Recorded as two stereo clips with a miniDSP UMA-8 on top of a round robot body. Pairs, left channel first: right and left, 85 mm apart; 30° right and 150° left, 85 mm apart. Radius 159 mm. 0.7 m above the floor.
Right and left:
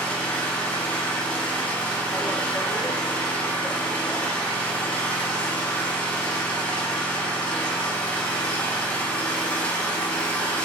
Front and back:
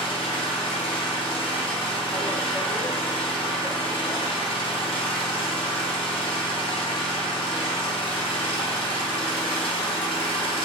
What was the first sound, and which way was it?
An engine running, 15° right.